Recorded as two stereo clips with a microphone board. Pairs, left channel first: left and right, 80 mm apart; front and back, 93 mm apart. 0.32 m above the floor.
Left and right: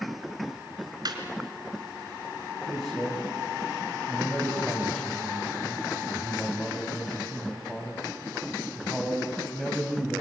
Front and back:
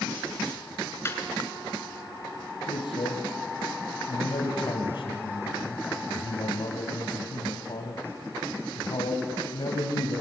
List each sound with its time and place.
1.1 s laughter: 60° right, 3.5 m
2.7 s a man speaking: straight ahead, 2 m